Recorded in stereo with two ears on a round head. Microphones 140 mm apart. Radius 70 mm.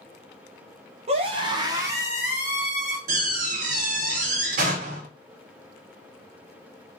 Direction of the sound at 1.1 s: 40° right (ahead or behind).